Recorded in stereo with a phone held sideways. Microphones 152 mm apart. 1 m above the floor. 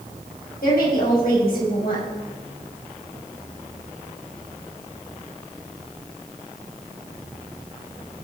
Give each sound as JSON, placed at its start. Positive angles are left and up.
{"t": 0.6, "sound": "a woman speaking", "side_deg": 80, "distance_m": 6.0}